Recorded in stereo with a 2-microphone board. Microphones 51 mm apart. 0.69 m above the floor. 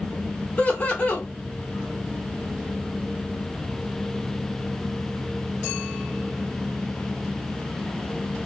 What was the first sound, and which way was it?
Laughter, 30° left (ahead or behind).